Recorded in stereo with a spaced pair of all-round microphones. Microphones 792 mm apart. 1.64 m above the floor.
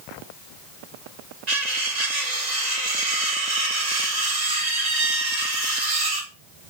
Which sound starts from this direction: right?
Cutlery clinking, at 1.5 s.